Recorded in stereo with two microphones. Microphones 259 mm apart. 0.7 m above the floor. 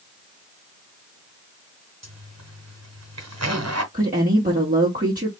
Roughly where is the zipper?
Right.